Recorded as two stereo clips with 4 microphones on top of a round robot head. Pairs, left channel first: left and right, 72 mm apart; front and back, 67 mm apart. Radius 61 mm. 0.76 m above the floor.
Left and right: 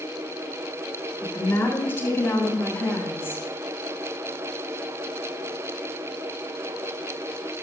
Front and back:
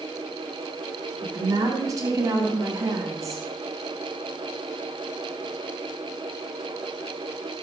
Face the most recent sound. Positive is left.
turn(degrees=150)